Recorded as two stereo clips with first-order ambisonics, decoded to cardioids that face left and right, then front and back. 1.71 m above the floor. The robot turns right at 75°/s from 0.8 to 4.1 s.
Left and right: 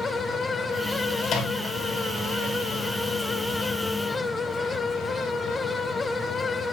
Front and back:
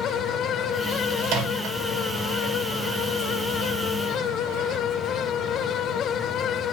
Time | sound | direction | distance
1.2 | a microwave | 140° left | 3 m